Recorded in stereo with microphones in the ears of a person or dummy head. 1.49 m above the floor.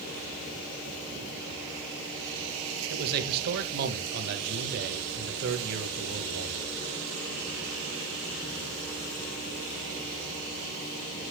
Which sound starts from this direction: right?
A man speaking, at 2.9 s.